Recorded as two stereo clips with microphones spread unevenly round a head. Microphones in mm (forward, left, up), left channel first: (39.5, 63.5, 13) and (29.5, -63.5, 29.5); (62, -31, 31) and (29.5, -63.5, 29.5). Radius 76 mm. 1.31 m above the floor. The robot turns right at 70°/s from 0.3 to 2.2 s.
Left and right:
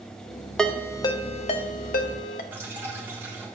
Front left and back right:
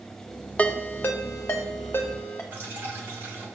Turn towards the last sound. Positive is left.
turn(degrees=-150)